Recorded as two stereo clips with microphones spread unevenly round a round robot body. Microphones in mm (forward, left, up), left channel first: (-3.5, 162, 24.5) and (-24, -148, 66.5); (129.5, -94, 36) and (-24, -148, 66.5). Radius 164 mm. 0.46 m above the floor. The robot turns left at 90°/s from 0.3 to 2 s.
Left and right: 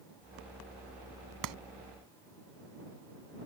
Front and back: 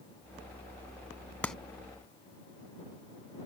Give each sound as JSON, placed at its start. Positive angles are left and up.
{"t": 1.4, "sound": "a clap", "azimuth_deg": -60}